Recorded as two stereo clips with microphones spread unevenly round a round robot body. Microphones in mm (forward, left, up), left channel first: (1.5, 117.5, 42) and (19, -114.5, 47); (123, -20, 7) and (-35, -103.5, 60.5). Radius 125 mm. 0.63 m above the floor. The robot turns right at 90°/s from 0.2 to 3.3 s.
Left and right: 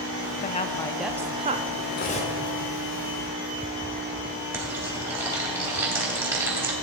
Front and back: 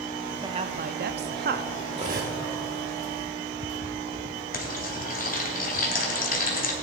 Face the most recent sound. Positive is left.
turn(degrees=-5)